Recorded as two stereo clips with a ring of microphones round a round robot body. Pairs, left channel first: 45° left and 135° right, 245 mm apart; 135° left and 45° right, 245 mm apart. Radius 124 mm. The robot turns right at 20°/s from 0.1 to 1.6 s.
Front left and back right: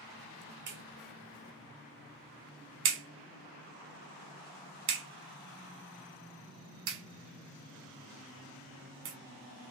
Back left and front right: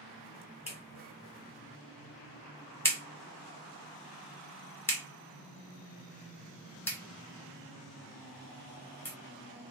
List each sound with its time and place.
0.7 s a clap: 165° right, 1.2 m; by 9.2 s 145° right, 1.2 m